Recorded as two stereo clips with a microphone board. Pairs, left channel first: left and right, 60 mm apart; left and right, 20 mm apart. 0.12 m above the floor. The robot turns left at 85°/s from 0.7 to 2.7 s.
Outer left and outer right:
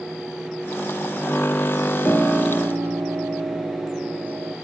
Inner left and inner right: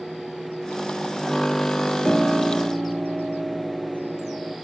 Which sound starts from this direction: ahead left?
A piano, at 2.0 s.